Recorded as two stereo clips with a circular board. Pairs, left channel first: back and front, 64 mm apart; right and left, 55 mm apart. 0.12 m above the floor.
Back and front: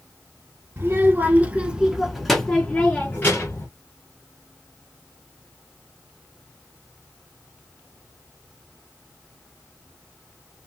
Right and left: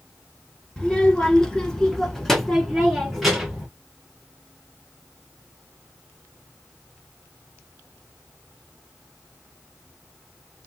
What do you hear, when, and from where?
0.8 s a child speaking: 25° right, 1.3 m; by 3.7 s 175° left, 1.3 m